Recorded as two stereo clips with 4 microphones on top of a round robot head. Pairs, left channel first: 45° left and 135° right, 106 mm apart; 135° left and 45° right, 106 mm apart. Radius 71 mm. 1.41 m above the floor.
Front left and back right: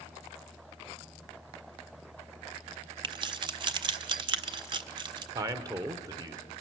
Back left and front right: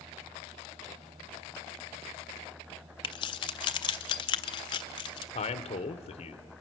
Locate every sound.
3.0 s keys jangling: straight behind, 0.5 m
5.3 s a man speaking: 165° left, 1.0 m